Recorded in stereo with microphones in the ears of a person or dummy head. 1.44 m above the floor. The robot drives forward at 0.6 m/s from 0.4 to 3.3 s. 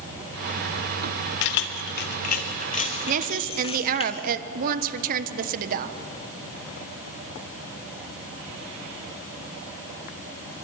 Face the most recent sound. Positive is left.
turn(degrees=-45)  # may be behind; listen again after turning